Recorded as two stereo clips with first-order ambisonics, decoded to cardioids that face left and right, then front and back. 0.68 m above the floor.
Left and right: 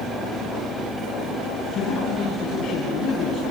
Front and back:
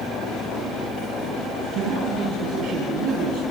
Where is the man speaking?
140° left, 4.5 m.